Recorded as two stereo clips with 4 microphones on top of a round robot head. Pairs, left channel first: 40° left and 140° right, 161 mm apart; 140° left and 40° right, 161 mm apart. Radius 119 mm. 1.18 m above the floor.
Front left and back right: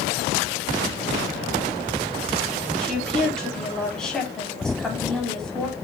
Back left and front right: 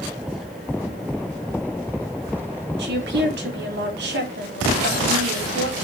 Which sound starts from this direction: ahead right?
A woman speaking, at 2.8 s.